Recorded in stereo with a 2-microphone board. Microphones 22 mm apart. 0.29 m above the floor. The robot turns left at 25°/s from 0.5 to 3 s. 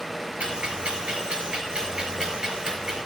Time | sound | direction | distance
0.4 | ticking | 65° right (ahead or behind) | 4.5 m